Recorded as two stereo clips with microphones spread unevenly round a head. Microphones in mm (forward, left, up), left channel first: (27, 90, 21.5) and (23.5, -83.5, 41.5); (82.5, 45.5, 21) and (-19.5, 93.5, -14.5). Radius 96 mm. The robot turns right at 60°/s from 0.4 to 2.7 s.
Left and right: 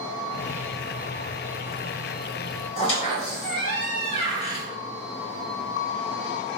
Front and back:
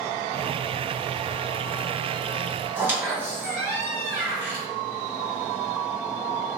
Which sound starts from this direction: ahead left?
A squeak, at 2.8 s.